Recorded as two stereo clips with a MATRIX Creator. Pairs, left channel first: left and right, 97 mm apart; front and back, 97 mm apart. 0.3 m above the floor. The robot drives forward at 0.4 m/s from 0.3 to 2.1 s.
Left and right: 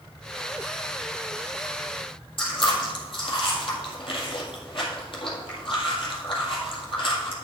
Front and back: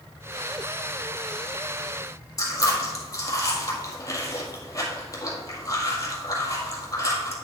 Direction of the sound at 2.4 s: 55° left.